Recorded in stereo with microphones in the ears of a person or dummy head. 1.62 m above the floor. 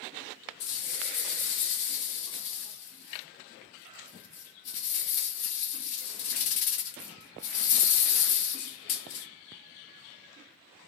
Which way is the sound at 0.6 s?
40° left (ahead or behind).